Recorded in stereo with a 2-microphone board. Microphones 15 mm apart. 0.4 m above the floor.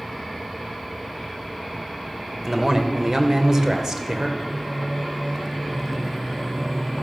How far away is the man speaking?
About 1.4 m.